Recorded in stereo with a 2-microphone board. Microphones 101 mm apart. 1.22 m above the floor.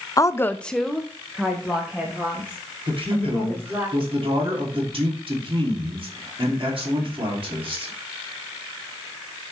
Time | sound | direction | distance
0.2 | a woman speaking | 30° left (ahead or behind) | 0.5 m
2.9 | a man speaking | 55° right (ahead or behind) | 2.5 m